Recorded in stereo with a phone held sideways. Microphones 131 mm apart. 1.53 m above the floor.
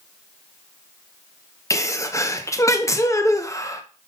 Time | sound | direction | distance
1.7 | a sneeze | 25° left (ahead or behind) | 1.1 m